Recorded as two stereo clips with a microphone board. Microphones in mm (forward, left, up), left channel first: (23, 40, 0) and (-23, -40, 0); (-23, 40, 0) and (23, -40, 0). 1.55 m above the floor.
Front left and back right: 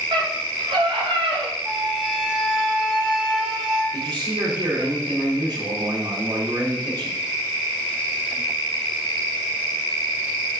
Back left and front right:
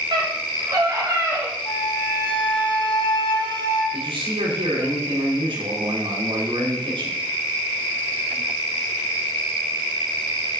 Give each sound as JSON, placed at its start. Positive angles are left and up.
{"t": 0.1, "sound": "a scream", "azimuth_deg": -95, "distance_m": 4.0}
{"t": 1.6, "sound": "a flute", "azimuth_deg": 150, "distance_m": 3.5}
{"t": 3.9, "sound": "a man speaking", "azimuth_deg": -80, "distance_m": 4.5}